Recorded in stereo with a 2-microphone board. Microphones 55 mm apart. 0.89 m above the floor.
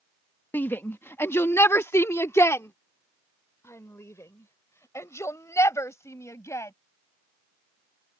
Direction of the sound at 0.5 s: 40° left (ahead or behind).